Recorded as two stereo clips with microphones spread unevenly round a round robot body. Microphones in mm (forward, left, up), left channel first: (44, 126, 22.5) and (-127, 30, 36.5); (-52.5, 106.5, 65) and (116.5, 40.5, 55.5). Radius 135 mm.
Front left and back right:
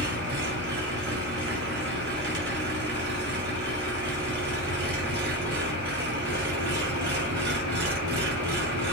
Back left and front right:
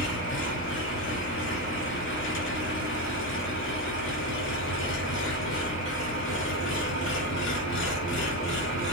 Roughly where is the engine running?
Behind.